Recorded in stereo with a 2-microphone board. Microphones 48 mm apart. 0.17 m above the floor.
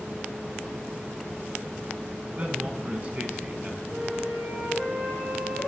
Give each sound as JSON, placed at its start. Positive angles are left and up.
{"t": 2.4, "sound": "a man speaking", "side_deg": -35, "distance_m": 1.2}
{"t": 3.9, "sound": "a flute", "side_deg": -70, "distance_m": 4.0}